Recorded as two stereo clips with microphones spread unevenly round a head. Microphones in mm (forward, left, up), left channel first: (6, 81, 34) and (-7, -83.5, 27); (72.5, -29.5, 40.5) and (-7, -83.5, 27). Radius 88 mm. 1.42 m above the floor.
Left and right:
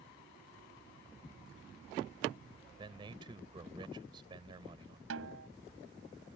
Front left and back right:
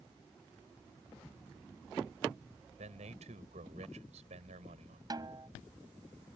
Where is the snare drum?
95° right.